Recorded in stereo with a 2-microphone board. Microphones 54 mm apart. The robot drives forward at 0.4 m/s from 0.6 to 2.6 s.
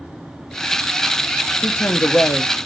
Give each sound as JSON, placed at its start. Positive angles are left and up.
{"t": 1.6, "sound": "a woman speaking", "side_deg": 55, "distance_m": 1.5}